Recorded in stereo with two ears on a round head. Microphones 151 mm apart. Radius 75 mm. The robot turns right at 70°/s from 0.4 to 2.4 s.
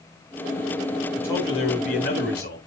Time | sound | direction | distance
1.2 | a man speaking | 10° left | 4 m